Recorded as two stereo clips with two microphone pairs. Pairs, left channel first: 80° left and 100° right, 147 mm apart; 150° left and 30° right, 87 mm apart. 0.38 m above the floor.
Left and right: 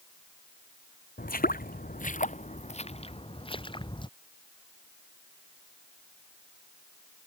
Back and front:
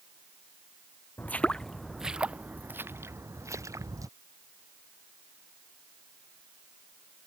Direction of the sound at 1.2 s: 85° left.